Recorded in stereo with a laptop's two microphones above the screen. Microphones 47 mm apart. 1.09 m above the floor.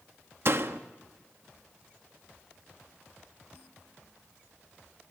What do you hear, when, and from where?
0.5 s a door slam: 55° right (ahead or behind), 1.2 m